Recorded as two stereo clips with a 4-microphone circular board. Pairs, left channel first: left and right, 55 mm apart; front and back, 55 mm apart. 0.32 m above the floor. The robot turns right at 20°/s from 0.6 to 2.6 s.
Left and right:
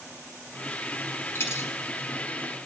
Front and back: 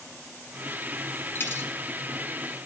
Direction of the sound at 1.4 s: 45° left.